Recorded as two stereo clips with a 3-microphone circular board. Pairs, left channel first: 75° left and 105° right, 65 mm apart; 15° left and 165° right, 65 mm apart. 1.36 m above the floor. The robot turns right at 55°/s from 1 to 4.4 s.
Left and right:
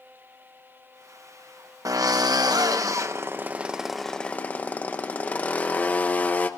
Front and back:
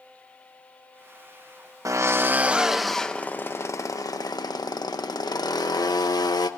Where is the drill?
130° right, 1.1 m; by 6.5 s 10° left, 1.1 m.